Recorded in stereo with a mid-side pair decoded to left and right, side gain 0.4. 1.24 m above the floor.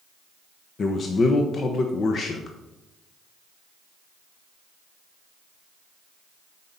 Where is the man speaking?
55° left, 0.9 m.